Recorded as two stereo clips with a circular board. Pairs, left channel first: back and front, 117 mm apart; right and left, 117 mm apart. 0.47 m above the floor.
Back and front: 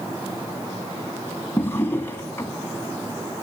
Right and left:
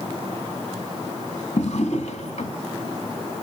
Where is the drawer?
110° right, 1.4 m.